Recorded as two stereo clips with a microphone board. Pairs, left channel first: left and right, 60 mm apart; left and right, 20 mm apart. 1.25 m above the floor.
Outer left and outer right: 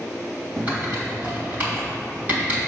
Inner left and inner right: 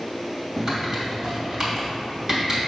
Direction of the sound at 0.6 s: 30° right (ahead or behind).